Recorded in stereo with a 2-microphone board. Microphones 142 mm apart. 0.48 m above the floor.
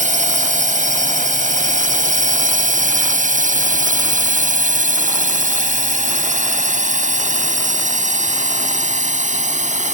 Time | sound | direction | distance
0.0 | a drone | 60° right (ahead or behind) | ?